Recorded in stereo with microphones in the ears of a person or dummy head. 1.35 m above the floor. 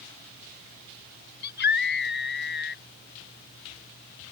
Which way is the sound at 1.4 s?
60° left (ahead or behind).